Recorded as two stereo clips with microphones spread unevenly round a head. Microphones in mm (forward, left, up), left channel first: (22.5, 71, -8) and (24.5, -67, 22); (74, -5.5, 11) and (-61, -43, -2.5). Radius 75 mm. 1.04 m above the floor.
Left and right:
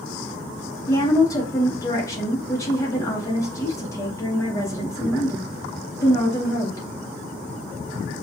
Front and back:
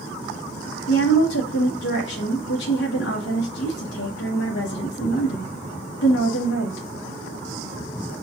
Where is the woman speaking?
25° left, 1.1 m.